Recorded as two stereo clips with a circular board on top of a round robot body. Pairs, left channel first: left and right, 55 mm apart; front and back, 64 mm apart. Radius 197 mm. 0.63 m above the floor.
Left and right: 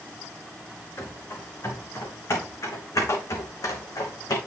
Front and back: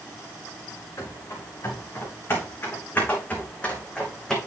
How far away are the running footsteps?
About 4 m.